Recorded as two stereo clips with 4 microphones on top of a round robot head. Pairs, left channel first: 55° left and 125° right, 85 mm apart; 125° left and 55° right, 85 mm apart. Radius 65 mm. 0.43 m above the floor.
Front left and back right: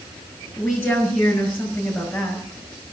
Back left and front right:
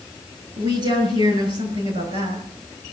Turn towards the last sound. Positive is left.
turn(degrees=-30)